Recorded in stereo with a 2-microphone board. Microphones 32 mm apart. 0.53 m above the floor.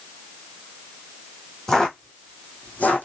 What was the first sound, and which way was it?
Footsteps, 20° left (ahead or behind).